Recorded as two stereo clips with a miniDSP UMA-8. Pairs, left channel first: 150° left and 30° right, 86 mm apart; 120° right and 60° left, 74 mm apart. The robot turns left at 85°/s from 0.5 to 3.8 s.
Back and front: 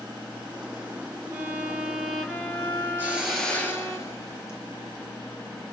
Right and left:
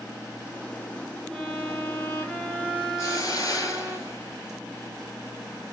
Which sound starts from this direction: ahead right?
A violin, at 1.3 s.